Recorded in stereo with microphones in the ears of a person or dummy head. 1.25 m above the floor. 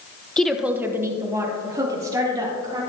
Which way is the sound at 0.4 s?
10° left (ahead or behind).